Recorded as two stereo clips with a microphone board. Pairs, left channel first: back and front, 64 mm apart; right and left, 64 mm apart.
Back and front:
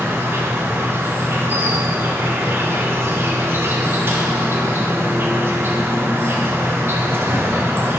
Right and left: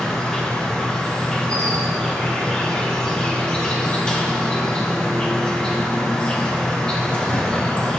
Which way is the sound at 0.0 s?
20° right.